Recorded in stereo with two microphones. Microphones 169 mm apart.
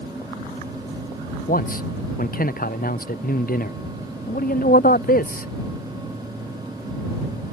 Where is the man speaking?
60° left (ahead or behind).